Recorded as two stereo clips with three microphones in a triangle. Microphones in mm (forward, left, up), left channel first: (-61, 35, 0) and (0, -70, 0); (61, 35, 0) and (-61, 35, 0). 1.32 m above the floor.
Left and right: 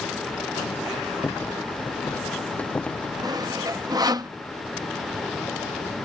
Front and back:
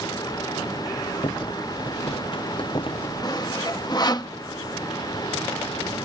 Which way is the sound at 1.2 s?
45° left.